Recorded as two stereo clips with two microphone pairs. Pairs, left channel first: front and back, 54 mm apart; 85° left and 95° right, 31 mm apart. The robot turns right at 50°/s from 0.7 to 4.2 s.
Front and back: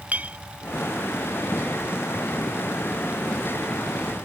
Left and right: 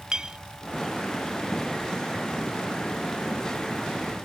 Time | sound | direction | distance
0.1 | a clink | 140° right | ?